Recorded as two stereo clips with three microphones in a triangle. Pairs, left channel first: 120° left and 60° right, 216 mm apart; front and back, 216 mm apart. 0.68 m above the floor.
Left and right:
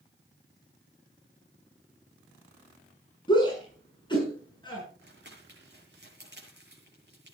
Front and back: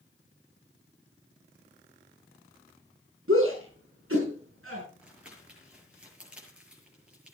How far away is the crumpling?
About 7 m.